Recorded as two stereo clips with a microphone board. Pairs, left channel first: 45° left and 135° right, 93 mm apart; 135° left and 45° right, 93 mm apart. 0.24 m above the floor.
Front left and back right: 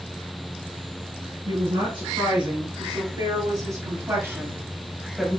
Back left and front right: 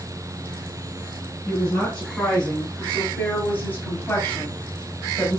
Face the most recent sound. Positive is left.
turn(degrees=125)